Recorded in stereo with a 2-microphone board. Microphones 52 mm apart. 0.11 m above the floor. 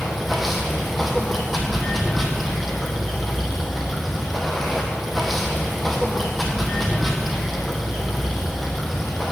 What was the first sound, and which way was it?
Running water, centre (ahead or behind).